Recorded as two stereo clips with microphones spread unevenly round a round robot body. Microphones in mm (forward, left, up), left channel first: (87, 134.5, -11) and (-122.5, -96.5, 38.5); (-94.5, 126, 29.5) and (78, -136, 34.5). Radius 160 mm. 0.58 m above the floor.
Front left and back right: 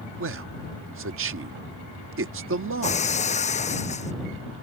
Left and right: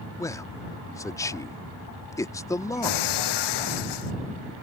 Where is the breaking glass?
120° left.